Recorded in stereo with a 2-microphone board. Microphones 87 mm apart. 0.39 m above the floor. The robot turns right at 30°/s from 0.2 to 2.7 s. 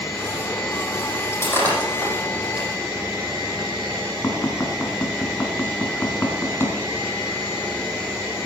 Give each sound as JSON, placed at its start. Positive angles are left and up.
{"t": 1.3, "sound": "breaking glass", "side_deg": 30, "distance_m": 6.5}
{"t": 4.2, "sound": "tapping", "side_deg": 30, "distance_m": 3.5}